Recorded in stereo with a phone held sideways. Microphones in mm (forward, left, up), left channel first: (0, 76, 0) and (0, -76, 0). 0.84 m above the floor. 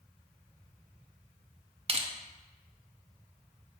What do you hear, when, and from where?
1.9 s crushing: 40° right (ahead or behind), 0.7 m